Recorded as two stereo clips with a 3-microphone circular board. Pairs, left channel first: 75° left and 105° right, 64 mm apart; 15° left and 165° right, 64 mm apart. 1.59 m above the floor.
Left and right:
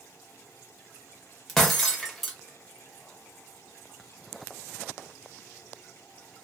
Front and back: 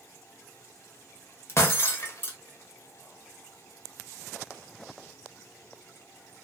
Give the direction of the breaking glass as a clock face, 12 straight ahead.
12 o'clock.